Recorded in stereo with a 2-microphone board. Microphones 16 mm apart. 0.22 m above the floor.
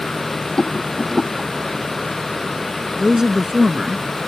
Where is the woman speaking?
35° right (ahead or behind).